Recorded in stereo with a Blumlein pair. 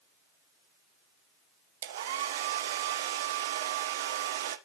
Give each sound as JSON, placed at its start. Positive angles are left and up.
{"t": 1.8, "sound": "a hair dryer", "azimuth_deg": -60, "distance_m": 0.7}